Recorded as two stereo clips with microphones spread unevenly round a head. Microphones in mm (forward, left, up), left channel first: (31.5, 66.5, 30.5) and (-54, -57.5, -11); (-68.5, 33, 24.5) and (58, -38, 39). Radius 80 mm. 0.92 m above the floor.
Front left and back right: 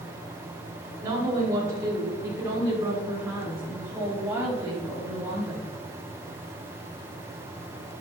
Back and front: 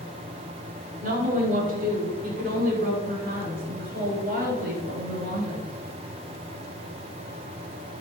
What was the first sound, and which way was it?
A woman speaking, 60° right.